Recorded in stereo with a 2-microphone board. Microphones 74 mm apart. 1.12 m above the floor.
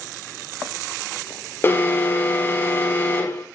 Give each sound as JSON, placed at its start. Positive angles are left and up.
{"t": 1.6, "sound": "an alarm", "side_deg": 30, "distance_m": 6.0}